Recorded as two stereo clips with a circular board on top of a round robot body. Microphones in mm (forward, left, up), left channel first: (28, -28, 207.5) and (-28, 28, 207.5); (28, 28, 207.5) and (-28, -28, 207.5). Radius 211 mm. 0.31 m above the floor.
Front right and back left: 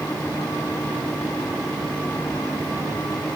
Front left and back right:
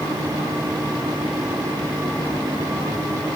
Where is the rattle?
No rattle in this recording.